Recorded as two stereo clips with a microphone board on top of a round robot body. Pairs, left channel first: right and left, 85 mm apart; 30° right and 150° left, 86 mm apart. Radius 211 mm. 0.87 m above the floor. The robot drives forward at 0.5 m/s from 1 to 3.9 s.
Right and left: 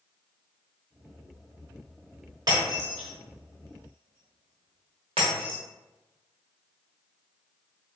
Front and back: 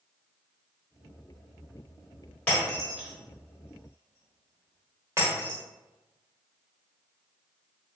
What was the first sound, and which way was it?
Breaking glass, 45° left.